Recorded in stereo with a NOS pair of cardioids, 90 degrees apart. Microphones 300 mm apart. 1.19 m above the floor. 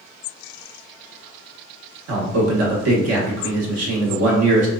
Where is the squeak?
No squeak in this recording.